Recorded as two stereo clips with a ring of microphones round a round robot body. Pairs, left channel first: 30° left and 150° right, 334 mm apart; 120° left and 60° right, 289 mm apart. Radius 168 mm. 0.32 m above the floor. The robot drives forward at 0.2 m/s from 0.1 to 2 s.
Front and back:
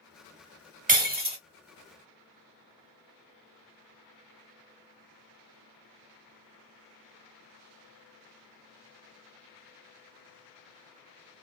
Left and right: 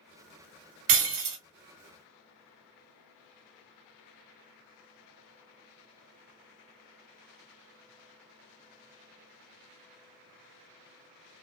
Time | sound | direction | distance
0.9 | breaking glass | 90° right | 0.8 m